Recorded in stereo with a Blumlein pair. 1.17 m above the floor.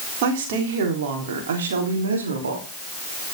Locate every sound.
0.2 s a woman speaking: 50° right, 3.5 m; by 2.7 s 70° right, 3 m